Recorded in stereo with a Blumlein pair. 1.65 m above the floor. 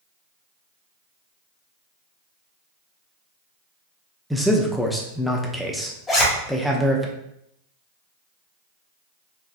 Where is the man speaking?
Straight ahead, 0.6 m.